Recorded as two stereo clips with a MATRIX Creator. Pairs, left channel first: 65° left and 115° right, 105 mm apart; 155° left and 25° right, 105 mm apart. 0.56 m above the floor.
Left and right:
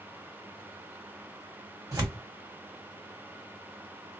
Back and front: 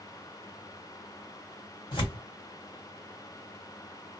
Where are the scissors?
I don't hear scissors.